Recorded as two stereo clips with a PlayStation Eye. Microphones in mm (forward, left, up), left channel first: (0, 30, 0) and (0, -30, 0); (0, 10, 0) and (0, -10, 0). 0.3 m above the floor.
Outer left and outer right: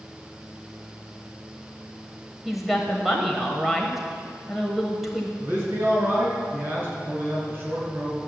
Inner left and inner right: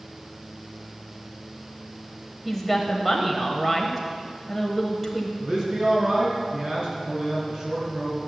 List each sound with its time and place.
2.5 s a woman speaking: centre (ahead or behind), 1.1 m
5.4 s a man speaking: 35° right (ahead or behind), 4 m